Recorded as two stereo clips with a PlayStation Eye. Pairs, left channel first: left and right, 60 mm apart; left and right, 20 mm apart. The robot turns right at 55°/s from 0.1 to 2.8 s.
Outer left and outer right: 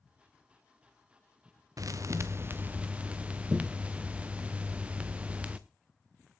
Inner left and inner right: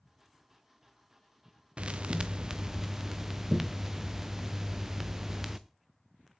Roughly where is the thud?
Right.